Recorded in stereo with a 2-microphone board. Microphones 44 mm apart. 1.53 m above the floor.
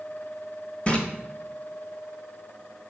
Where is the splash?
25° left (ahead or behind), 1.1 m.